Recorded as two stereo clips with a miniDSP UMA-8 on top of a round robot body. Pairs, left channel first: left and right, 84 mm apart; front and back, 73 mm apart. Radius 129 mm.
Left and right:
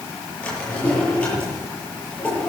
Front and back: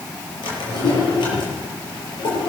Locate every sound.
0.4 s a drawer: 10° left, 8.5 m